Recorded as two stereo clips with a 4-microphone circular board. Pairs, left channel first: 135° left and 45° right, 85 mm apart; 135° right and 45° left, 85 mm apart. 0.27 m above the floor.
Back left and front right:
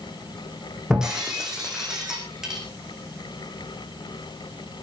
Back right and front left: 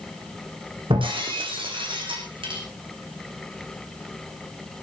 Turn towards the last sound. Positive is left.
turn(degrees=40)